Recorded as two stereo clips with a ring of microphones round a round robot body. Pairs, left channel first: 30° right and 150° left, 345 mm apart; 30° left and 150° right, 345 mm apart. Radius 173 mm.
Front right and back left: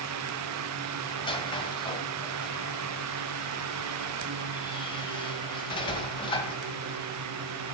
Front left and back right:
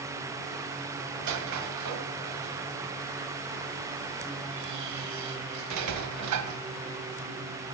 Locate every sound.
1.2 s a squeak: 105° right, 1.4 m